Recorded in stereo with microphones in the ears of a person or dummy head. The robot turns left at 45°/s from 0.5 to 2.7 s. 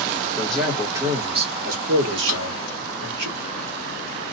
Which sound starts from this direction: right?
A drawer, at 2.3 s.